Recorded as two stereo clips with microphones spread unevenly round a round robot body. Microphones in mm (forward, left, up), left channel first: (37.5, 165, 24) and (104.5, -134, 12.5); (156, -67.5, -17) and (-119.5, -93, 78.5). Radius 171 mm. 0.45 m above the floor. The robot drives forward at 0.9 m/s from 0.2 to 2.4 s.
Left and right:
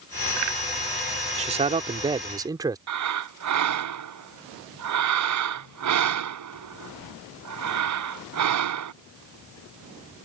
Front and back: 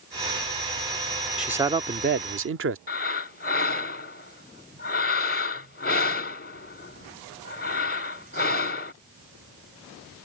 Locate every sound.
1.4 s a man speaking: 45° right; by 2.8 s 140° right
2.9 s breathing: 45° right